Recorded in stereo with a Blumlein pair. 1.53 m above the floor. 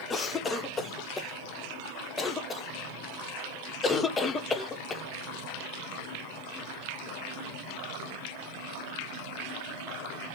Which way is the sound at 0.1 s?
15° left.